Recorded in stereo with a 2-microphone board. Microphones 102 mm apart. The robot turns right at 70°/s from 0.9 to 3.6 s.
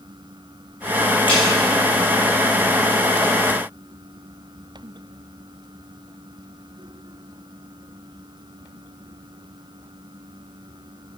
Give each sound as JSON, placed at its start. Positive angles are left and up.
{"t": 1.3, "sound": "a snare drum", "side_deg": 55, "distance_m": 6.5}